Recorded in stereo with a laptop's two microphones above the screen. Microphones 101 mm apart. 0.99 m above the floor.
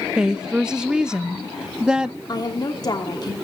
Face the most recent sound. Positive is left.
turn(degrees=40)  # may be behind; listen again after turning